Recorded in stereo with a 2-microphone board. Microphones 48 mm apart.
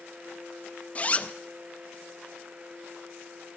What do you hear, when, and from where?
0.9 s a zipper: 30° left (ahead or behind), 0.6 m